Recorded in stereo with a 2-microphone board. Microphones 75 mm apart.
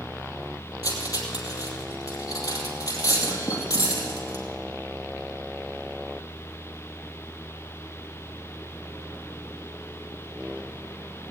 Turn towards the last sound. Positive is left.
turn(degrees=55)  # may be behind; listen again after turning